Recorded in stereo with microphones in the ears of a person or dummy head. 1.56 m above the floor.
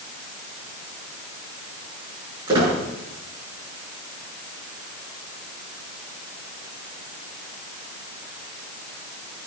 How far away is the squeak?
About 7 m.